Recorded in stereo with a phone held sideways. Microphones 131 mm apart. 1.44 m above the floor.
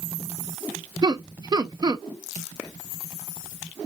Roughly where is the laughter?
Right.